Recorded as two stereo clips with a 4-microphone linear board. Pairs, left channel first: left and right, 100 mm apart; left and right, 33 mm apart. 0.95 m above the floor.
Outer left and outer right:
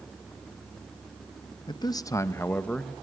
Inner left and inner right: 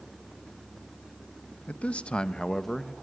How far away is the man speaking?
About 1.1 m.